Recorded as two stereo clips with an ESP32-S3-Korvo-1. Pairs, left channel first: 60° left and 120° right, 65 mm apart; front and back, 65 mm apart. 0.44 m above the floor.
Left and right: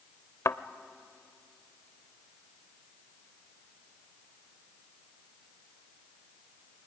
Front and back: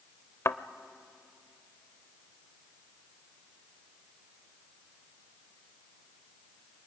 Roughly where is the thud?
Ahead left.